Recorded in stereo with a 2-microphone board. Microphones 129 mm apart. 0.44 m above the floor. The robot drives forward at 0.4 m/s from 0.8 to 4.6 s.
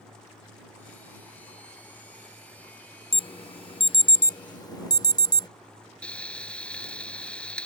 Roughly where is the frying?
Centre.